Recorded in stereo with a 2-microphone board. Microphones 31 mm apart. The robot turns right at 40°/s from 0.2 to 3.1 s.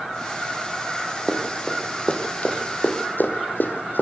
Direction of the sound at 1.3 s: Centre (ahead or behind).